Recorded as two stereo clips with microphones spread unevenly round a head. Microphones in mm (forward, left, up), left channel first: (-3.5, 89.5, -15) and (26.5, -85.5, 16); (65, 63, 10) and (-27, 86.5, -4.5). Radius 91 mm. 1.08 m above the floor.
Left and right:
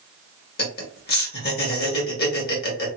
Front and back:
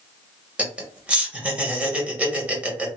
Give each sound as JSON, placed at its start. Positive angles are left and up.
{"t": 0.6, "sound": "laughter", "azimuth_deg": 95, "distance_m": 1.5}